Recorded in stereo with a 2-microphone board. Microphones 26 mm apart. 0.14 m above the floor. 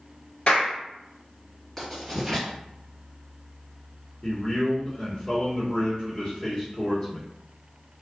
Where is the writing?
10° left (ahead or behind), 1.6 m.